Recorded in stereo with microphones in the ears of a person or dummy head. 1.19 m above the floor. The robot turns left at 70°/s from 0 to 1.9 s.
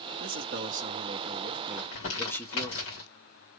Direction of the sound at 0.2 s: 75° right.